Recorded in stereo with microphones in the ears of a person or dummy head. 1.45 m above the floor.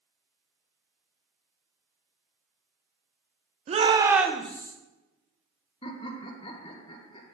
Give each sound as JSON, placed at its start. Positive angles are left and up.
{"t": 3.7, "sound": "a shout", "side_deg": -35, "distance_m": 0.9}
{"t": 5.8, "sound": "laughter", "side_deg": 30, "distance_m": 1.5}